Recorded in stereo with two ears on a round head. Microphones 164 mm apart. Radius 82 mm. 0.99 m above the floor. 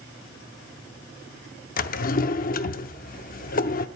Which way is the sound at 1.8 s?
45° left (ahead or behind).